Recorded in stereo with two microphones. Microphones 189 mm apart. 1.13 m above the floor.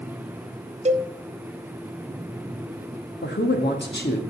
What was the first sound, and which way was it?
A cowbell, 40° right (ahead or behind).